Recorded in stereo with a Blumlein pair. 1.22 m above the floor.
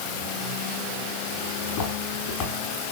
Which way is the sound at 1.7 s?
45° left.